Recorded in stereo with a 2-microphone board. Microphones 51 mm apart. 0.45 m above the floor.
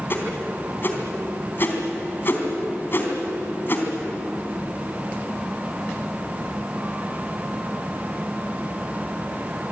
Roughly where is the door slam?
No door slam in this recording.